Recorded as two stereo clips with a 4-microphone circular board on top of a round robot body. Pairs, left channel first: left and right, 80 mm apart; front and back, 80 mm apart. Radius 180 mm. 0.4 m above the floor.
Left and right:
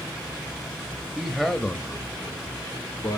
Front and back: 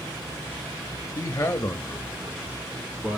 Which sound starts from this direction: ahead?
A man speaking, at 1.1 s.